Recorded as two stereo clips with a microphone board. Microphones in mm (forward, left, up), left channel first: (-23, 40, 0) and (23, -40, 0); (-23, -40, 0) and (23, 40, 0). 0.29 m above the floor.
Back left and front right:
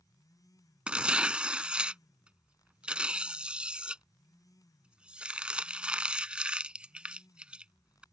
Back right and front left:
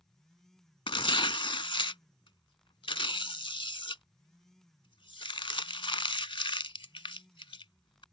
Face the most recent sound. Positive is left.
turn(degrees=-140)